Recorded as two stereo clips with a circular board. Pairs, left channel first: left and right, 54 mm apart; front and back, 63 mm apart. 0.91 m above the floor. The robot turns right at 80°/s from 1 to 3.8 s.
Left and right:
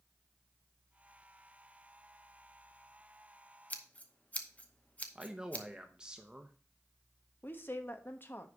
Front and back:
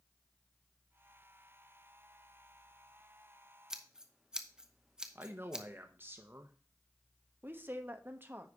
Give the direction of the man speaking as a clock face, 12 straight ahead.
5 o'clock.